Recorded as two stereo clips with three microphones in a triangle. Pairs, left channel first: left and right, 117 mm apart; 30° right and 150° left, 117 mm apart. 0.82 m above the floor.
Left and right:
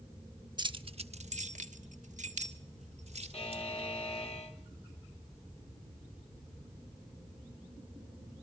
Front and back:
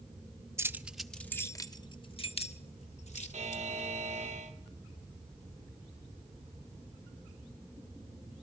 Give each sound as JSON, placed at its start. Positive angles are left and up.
{"t": 0.6, "sound": "keys jangling", "azimuth_deg": -140, "distance_m": 1.0}
{"t": 3.3, "sound": "a buzzer", "azimuth_deg": 125, "distance_m": 2.5}